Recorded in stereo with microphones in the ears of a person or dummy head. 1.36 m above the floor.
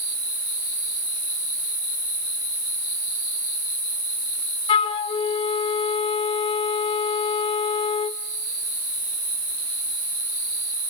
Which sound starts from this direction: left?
A flute, at 4.7 s.